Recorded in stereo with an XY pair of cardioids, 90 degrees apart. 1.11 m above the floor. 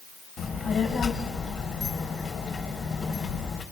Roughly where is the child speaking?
Ahead left.